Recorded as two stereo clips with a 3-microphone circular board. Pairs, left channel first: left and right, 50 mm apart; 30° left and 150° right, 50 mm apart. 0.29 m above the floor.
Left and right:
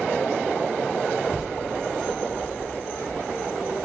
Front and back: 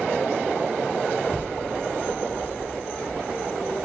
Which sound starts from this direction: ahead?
A child speaking, at 1.2 s.